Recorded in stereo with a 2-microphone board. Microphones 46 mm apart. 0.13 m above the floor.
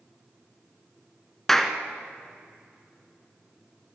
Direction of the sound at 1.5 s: 10° left (ahead or behind).